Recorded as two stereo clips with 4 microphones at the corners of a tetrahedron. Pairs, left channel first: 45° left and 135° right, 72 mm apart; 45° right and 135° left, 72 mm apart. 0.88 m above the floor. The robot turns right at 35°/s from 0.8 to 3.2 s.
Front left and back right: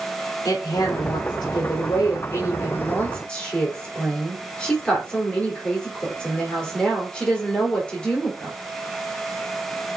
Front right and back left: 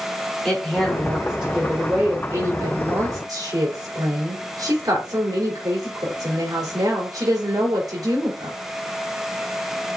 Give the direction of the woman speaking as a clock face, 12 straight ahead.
11 o'clock.